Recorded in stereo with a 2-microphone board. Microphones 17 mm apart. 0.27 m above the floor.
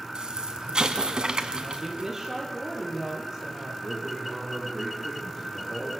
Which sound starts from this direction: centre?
A man speaking, at 3.8 s.